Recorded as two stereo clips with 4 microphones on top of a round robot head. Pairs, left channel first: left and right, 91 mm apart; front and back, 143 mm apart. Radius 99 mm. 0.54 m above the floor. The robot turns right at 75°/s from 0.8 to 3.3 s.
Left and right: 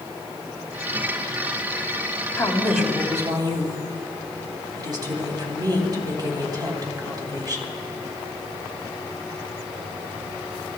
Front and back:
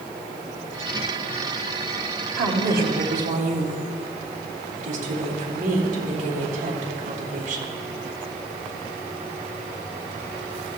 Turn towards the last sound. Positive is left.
turn(degrees=-135)